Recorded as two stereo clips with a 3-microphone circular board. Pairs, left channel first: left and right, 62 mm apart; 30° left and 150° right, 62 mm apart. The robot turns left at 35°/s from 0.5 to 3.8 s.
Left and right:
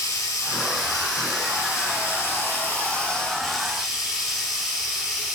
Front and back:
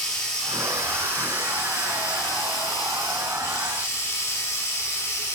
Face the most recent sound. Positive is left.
turn(degrees=-10)